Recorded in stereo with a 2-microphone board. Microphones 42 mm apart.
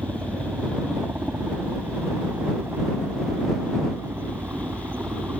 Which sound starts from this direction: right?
A helicopter, at 0.0 s.